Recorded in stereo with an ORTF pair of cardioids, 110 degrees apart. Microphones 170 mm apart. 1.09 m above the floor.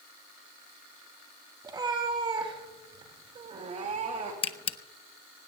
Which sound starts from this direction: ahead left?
A camera shutter, at 4.4 s.